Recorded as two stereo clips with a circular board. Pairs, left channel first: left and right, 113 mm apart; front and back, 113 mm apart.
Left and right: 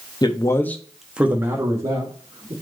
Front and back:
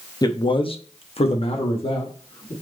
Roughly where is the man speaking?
Ahead left.